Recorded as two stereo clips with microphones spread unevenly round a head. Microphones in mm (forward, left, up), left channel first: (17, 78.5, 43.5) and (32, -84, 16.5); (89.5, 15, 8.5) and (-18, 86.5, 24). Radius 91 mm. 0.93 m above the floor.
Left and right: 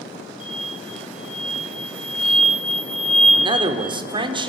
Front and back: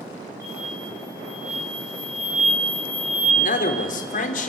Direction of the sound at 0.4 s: 135° right.